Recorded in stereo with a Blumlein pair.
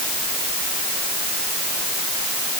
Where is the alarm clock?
No alarm clock in this recording.